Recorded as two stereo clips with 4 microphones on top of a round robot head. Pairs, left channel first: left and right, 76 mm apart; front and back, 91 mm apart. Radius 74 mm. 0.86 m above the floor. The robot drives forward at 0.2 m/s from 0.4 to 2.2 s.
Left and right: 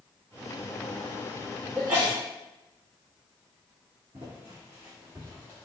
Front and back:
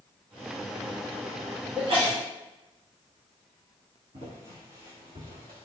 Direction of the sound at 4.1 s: 135° right.